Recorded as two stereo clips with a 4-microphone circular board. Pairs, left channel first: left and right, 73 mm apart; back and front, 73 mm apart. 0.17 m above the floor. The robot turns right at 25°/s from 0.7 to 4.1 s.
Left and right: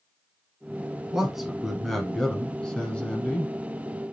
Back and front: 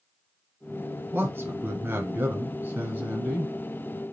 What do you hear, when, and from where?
1.1 s a man speaking: 15° right, 1.3 m; by 3.5 s 45° left, 1.3 m